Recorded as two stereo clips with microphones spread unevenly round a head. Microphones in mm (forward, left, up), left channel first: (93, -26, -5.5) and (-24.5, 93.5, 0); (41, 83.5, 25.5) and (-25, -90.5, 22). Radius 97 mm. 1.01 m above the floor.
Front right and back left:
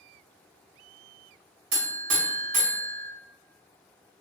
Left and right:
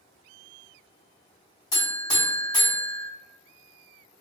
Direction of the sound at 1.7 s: 140° left.